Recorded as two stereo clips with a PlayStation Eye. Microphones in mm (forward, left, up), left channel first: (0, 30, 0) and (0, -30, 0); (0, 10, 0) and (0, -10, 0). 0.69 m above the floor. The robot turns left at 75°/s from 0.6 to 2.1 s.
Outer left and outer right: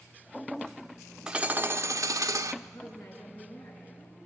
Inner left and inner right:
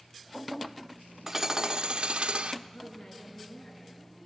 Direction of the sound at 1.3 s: 15° right.